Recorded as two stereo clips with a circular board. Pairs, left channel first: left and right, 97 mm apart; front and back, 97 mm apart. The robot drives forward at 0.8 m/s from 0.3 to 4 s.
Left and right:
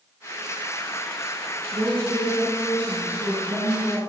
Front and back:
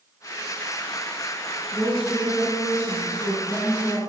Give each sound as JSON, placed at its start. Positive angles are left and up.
{"t": 1.7, "sound": "a woman speaking", "azimuth_deg": -90, "distance_m": 1.5}